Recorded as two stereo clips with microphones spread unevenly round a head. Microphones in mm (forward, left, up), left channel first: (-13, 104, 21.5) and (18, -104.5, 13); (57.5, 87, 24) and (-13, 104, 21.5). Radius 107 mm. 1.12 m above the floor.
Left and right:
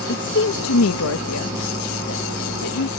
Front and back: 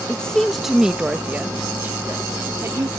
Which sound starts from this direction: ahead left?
A woman speaking, at 0.1 s.